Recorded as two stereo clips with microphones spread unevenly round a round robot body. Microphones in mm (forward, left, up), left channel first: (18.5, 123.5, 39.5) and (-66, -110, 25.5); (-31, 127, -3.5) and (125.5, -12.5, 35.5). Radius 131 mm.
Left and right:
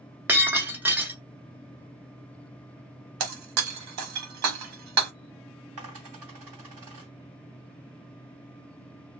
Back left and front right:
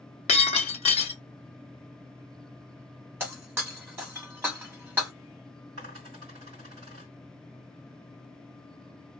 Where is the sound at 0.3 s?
170° left, 0.7 m.